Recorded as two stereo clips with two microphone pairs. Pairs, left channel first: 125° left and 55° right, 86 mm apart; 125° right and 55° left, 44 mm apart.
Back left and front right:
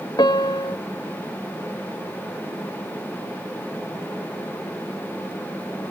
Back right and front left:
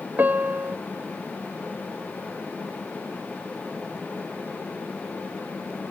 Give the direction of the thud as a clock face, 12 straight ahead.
No thud in this recording.